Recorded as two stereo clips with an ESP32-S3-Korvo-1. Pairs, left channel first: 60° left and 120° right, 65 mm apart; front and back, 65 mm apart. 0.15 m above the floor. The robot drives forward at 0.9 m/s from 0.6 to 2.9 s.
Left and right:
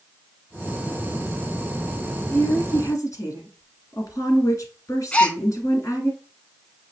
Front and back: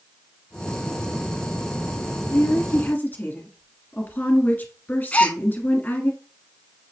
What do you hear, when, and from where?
2.3 s a woman speaking: 40° left, 2.0 m; by 6.1 s 55° left, 1.7 m
5.1 s a gasp: 20° left, 0.6 m